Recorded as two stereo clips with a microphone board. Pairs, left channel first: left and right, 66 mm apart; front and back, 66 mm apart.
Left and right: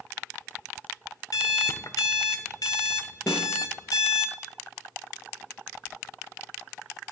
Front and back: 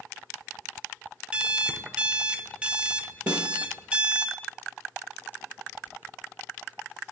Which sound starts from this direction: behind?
A snare drum, at 3.3 s.